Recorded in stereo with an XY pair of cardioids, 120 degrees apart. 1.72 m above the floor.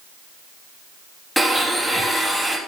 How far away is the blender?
About 3 m.